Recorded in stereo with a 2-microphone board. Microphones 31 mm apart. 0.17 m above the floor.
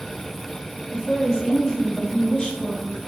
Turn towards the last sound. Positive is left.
turn(degrees=25)  # may be behind; listen again after turning